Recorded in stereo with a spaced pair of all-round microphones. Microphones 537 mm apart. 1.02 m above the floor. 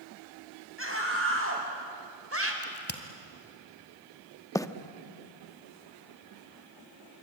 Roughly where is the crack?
Centre.